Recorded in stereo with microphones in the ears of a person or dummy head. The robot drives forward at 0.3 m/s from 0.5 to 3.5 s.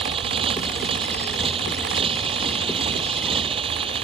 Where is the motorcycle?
30° right (ahead or behind).